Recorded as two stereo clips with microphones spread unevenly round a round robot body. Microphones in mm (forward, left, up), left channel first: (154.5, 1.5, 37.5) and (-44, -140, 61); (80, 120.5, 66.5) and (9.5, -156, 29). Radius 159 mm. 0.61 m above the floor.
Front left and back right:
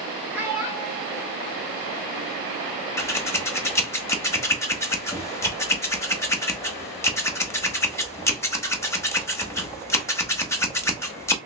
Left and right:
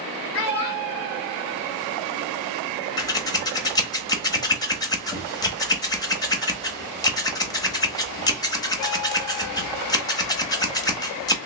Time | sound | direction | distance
0.3 | a child speaking | 130° left | 1.2 m
3.0 | scissors | straight ahead | 0.9 m